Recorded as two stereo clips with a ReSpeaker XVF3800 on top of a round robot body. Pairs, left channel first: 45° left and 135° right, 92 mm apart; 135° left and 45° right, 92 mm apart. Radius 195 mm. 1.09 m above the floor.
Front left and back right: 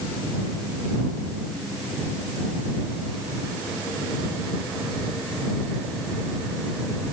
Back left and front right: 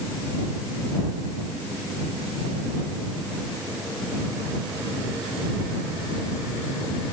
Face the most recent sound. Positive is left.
No sound to turn to.